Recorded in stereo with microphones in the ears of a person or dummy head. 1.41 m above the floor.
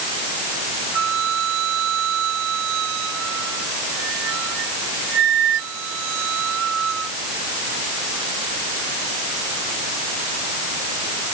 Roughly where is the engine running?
No engine running in this recording.